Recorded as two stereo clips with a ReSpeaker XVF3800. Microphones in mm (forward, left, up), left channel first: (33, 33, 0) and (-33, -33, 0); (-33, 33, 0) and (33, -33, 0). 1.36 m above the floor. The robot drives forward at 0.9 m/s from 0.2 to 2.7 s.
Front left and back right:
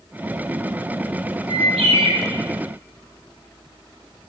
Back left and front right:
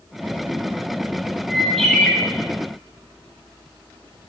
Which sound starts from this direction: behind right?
A bird, at 1.5 s.